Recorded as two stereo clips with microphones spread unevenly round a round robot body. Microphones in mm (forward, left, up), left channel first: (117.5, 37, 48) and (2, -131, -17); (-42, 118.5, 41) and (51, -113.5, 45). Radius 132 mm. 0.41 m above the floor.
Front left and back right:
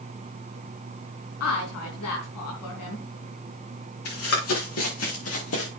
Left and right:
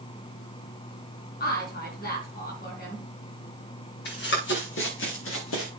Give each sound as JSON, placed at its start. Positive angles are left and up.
{"t": 1.4, "sound": "a woman speaking", "azimuth_deg": 60, "distance_m": 4.5}
{"t": 4.0, "sound": "running footsteps", "azimuth_deg": 65, "distance_m": 5.5}